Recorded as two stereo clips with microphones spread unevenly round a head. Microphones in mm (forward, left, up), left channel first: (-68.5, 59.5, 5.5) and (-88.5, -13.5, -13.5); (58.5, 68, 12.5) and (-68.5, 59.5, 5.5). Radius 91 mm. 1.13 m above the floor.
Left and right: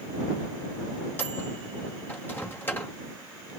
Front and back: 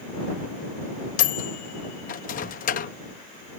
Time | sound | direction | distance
1.2 | a microwave | straight ahead | ?